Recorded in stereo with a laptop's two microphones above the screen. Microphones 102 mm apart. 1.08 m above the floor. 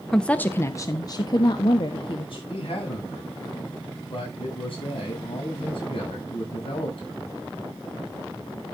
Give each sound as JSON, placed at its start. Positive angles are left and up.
{"t": 0.1, "sound": "a woman speaking", "side_deg": 5, "distance_m": 0.6}
{"t": 2.5, "sound": "a man speaking", "side_deg": 65, "distance_m": 7.0}